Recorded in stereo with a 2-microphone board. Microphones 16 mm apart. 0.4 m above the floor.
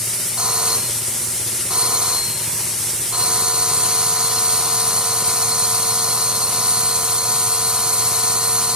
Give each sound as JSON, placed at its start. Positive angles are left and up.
{"t": 0.4, "sound": "a doorbell", "side_deg": -70}